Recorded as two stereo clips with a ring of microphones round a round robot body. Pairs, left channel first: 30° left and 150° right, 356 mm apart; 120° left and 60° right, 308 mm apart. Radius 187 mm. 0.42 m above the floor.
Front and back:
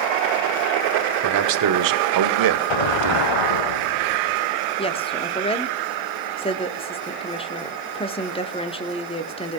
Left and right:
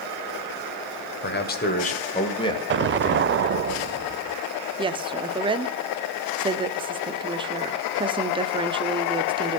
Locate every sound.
1.2 s a man speaking: 175° left, 1.6 m; by 3.3 s 155° right, 2 m
2.7 s an explosion: straight ahead, 0.5 m
4.8 s a woman speaking: 15° right, 1.0 m